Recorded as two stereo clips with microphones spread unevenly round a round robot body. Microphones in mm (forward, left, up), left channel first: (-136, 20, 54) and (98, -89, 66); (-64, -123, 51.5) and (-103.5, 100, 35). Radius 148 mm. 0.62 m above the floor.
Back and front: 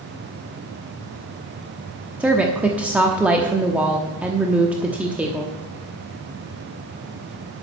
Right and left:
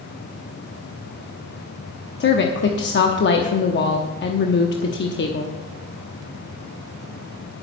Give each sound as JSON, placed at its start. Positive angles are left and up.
{"t": 2.2, "sound": "a woman speaking", "azimuth_deg": -110, "distance_m": 1.1}